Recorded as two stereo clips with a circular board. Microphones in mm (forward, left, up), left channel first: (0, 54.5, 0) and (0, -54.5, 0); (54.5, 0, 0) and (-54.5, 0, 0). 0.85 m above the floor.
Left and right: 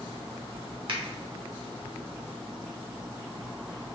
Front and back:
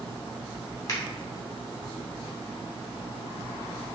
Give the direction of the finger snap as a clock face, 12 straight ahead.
2 o'clock.